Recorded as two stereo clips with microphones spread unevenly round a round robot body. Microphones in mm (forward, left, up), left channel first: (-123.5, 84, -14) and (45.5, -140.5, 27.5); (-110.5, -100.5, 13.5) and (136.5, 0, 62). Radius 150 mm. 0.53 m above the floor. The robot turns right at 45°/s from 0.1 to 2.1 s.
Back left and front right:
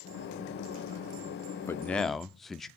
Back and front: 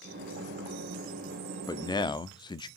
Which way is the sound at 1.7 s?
Straight behind.